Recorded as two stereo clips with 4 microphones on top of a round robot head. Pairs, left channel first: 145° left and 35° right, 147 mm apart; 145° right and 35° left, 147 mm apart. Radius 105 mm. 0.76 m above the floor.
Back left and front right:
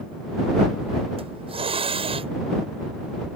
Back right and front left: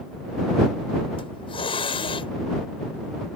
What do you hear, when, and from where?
1.2 s a hiss: 90° right